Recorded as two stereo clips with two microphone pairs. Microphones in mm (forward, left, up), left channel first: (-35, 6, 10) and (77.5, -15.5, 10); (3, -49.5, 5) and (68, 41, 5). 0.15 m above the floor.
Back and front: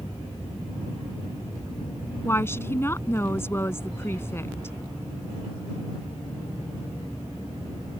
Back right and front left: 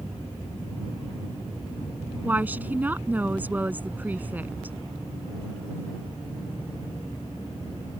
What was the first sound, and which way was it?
A woman speaking, 115° left.